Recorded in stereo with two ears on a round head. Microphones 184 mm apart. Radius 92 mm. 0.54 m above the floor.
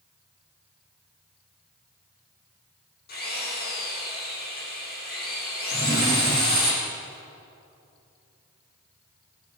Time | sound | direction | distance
3.1 | a drill | 50° left (ahead or behind) | 9.5 m
5.7 | a drawer | 20° right (ahead or behind) | 4.5 m